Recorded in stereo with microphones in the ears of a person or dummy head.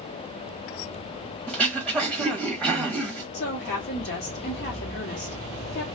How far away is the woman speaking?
About 1.0 m.